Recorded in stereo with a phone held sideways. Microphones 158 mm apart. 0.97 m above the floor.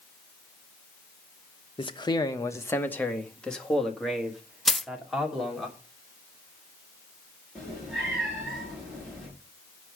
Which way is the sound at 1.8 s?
35° left (ahead or behind).